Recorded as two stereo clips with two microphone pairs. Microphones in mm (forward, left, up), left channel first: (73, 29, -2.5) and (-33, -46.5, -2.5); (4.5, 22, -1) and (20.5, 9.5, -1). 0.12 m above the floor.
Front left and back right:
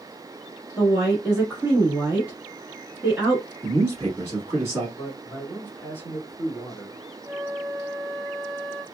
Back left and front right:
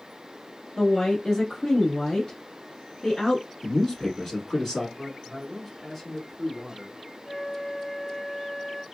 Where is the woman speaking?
155° left, 1.2 m.